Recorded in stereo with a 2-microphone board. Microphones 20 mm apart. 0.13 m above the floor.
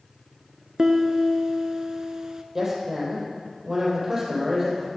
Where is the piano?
35° right (ahead or behind), 0.7 m.